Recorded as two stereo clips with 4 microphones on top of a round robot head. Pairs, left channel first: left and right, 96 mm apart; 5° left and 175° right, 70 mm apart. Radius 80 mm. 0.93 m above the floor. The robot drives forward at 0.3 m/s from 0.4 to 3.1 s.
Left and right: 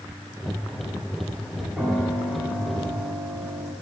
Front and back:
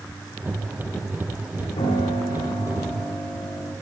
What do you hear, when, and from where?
1.8 s a piano: 15° right, 2.5 m; by 3.7 s 20° right, 1.9 m